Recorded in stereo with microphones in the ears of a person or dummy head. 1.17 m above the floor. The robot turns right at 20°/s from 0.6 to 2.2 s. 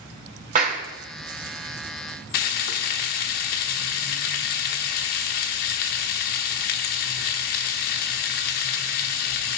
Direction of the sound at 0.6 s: 35° right (ahead or behind).